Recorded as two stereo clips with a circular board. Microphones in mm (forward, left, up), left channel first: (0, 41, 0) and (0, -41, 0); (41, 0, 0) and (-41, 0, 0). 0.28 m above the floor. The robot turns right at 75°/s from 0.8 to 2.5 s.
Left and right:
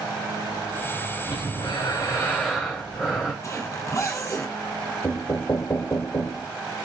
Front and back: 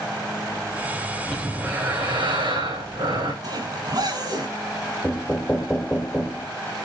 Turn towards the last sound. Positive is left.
turn(degrees=65)